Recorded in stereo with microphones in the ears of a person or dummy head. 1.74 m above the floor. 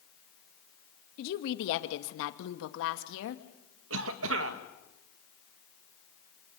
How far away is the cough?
About 2 m.